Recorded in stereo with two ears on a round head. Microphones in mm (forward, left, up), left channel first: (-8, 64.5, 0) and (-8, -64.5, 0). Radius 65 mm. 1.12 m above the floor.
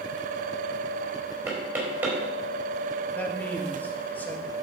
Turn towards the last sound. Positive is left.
turn(degrees=10)  # may be behind; listen again after turning